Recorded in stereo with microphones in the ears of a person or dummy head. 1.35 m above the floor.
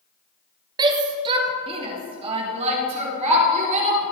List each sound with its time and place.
0.8 s a shout: 20° right (ahead or behind), 1.3 m; by 4.0 s 35° right (ahead or behind), 4 m